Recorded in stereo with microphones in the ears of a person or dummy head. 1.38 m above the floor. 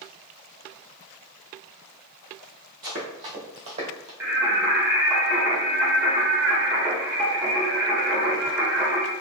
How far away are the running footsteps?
About 1.8 m.